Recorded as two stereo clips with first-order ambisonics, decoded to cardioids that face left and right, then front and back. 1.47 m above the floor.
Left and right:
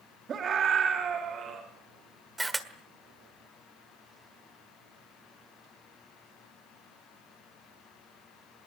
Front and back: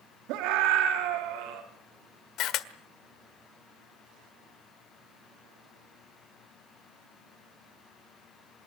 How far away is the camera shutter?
About 1.5 m.